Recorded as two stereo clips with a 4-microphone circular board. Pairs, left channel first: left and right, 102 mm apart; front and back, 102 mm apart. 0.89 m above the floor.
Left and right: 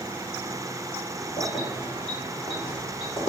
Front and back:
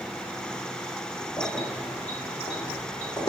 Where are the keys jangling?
85° left, 1.5 m; by 3.3 s 50° left, 1.8 m.